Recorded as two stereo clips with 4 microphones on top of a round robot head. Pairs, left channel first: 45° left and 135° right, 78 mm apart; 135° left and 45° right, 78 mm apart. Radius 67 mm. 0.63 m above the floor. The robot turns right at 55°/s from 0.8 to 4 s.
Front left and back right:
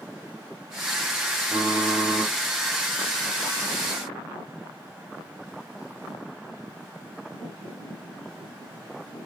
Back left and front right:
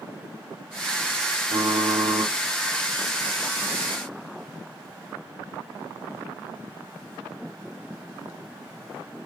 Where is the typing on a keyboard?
70° right, 1.5 m; by 2.3 s 20° right, 1.5 m.